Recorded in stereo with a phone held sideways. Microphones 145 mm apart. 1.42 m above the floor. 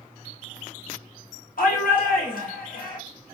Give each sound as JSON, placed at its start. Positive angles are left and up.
{"t": 1.6, "sound": "a shout", "side_deg": 80, "distance_m": 0.9}